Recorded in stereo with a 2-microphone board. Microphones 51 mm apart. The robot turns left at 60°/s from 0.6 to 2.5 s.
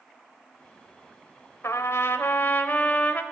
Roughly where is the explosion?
I don't hear an explosion.